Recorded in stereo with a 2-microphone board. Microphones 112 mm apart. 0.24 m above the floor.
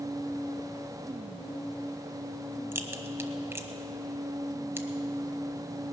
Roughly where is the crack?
Right.